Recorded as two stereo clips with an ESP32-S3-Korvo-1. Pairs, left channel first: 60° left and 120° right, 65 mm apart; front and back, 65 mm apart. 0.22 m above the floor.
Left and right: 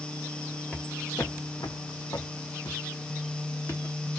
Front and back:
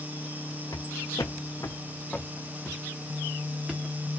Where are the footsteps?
10° right, 0.9 m; by 4.0 s 105° left, 1.9 m.